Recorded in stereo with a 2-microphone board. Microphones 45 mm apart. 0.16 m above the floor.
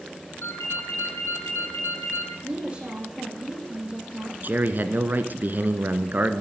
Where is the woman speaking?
25° right (ahead or behind), 8.5 m.